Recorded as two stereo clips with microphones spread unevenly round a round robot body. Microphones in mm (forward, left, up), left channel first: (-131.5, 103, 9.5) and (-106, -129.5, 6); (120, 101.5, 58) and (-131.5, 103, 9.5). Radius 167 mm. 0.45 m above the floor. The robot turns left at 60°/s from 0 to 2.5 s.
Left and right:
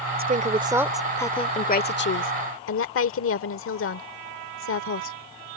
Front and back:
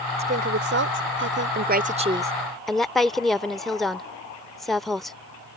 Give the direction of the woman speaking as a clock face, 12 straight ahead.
4 o'clock.